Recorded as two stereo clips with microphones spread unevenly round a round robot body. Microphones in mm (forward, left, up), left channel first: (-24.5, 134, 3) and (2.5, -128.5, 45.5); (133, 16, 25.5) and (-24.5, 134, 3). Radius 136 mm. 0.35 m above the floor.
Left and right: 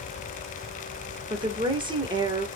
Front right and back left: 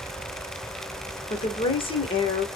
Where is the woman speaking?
15° right, 1.0 m.